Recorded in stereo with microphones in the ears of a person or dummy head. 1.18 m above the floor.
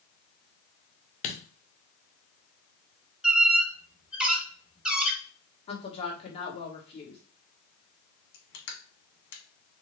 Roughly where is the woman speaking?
Left.